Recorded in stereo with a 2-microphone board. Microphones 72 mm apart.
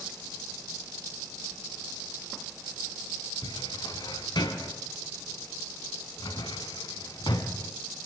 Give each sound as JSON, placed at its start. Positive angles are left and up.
{"t": 3.4, "sound": "a cupboard door", "side_deg": 80, "distance_m": 2.0}